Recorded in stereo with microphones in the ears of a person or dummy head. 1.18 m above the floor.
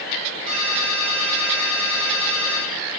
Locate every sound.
0.5 s a ringtone: 35° right (ahead or behind), 4 m